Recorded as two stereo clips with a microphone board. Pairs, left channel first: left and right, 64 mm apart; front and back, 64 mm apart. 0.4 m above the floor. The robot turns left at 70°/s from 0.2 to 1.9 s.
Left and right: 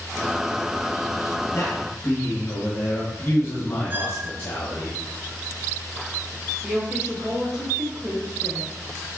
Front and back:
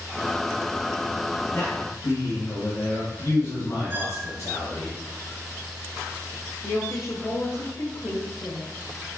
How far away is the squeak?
About 0.9 m.